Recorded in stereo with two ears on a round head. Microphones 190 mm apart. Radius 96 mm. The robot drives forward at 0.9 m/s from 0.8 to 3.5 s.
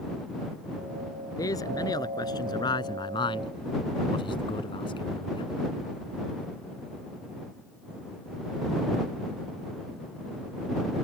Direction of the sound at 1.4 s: 15° left (ahead or behind).